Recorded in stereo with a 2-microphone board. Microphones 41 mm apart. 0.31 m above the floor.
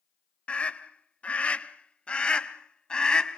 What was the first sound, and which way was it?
A scream, 30° left (ahead or behind).